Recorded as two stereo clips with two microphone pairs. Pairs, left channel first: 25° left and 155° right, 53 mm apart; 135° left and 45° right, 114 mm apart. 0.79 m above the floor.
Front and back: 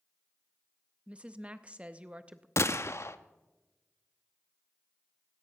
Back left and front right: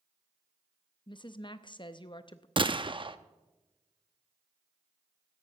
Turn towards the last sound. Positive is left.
turn(degrees=-5)